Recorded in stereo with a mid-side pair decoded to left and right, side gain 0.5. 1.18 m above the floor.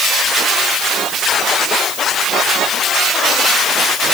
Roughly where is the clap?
I don't hear a clap.